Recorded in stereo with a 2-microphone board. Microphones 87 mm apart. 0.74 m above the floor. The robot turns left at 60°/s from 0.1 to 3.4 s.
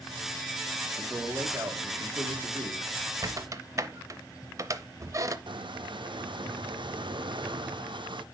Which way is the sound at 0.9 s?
10° right.